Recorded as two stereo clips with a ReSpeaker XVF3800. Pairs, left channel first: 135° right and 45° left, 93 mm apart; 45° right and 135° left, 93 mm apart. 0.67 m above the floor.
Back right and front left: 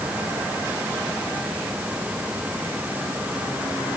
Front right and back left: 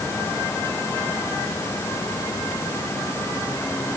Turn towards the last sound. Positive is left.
No sound to turn to.